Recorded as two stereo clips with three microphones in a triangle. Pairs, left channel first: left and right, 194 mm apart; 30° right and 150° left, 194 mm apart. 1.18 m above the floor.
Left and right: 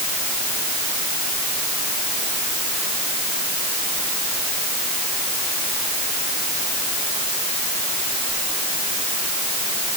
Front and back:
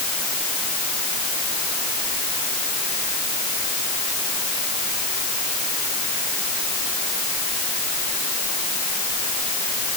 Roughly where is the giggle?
I don't hear a giggle.